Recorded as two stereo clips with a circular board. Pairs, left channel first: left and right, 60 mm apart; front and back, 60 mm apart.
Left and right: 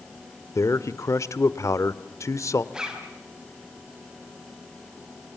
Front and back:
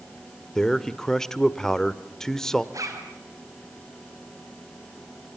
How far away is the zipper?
About 4 m.